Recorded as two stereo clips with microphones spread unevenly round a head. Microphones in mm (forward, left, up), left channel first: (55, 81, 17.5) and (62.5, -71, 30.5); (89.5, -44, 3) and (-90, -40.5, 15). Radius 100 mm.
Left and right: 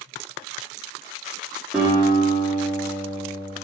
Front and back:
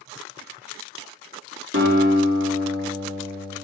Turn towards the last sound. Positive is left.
turn(degrees=-170)